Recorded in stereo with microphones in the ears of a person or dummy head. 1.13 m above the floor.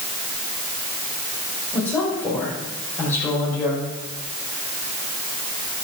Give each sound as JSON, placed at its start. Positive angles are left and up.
{"t": 1.7, "sound": "a woman speaking", "side_deg": 20, "distance_m": 5.5}